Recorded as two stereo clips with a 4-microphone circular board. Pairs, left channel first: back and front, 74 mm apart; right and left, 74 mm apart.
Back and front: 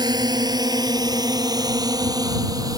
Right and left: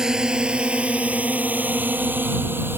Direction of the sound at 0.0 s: 10° left.